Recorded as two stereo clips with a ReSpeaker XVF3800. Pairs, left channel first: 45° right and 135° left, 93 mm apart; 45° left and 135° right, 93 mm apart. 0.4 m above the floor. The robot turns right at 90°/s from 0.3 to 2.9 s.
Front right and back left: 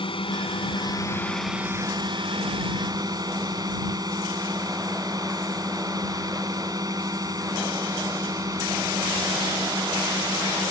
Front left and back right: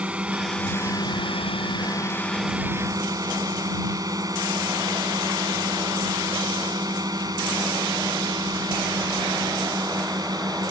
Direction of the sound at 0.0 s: 60° right.